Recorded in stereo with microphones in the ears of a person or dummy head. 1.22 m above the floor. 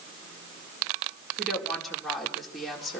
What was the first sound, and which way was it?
A woman speaking, 5° left (ahead or behind).